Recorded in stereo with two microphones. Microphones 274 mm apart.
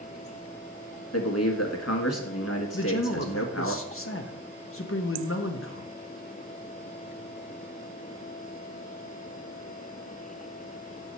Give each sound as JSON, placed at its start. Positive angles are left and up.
{"t": 1.1, "sound": "a man speaking", "side_deg": 65, "distance_m": 1.5}
{"t": 2.7, "sound": "a man speaking", "side_deg": 50, "distance_m": 0.8}